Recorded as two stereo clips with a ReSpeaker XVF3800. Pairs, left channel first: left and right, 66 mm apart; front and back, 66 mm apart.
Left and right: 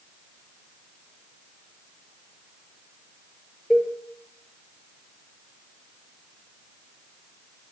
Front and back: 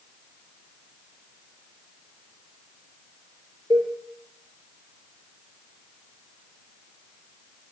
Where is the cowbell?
170° right, 3.5 m.